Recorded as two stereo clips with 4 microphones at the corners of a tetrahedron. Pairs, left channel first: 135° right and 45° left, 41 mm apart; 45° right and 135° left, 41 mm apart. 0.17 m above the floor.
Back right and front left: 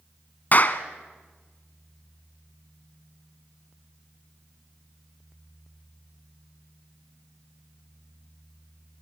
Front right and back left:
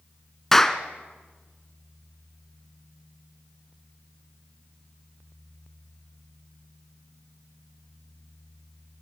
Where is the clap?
120° right, 1.3 m.